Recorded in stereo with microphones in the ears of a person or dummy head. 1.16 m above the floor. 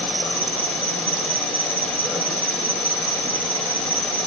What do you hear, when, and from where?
0.0 s an insect: 5° left (ahead or behind), 8.5 m